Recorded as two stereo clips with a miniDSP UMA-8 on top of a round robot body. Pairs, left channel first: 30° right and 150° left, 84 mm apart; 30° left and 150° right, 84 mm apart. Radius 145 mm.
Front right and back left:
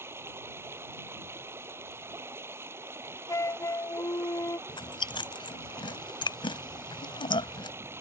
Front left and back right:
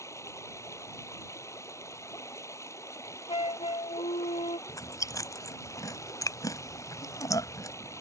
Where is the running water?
90° left.